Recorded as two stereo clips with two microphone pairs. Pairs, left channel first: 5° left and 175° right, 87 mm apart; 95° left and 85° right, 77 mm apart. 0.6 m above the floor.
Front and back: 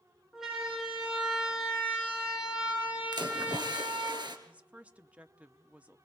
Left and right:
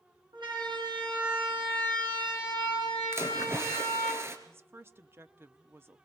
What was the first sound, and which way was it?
A siren, 90° right.